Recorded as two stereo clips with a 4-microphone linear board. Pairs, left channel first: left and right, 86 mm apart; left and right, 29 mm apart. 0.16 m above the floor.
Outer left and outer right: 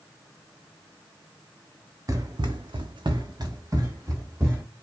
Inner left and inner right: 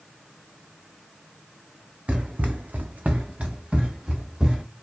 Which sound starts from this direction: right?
Running footsteps, at 2.1 s.